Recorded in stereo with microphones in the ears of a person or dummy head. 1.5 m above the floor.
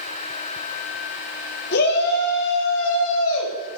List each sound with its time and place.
1.7 s a shout: 60° left (ahead or behind), 3 m; by 3.8 s 80° left, 3 m